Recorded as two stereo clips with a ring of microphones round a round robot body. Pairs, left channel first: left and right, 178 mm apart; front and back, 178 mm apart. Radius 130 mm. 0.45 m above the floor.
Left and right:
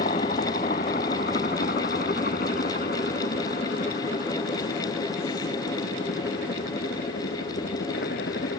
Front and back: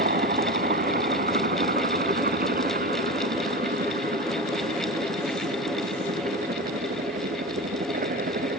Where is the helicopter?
150° left; by 8.6 s 145° left.